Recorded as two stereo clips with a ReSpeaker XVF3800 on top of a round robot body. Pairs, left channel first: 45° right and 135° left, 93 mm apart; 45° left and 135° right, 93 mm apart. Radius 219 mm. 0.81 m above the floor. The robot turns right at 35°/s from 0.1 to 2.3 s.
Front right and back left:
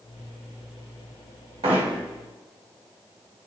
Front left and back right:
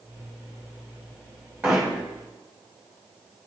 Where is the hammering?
155° left, 1.9 m; by 2.0 s 170° left, 1.9 m.